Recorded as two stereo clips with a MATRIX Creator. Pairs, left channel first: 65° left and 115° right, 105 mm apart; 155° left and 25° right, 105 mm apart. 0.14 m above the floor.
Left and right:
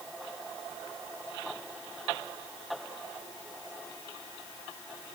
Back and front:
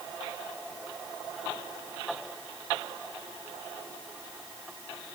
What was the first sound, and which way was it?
Only background noise.